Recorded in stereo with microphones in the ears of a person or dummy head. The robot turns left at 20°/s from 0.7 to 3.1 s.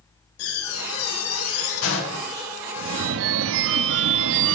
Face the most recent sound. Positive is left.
turn(degrees=-65)  # may be behind; listen again after turning